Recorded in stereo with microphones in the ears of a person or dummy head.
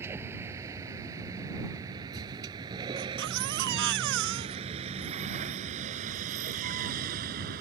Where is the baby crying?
60° right (ahead or behind).